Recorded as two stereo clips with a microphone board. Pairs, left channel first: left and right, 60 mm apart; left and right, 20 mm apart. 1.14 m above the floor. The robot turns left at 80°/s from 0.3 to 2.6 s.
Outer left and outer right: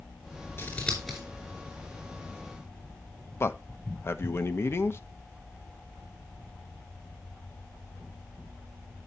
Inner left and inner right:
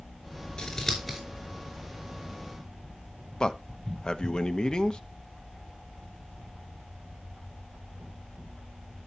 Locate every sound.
0.6 s scissors: 40° left (ahead or behind), 4.5 m; by 1.2 s 10° right (ahead or behind), 4.5 m
3.4 s a man speaking: 45° left (ahead or behind), 1.0 m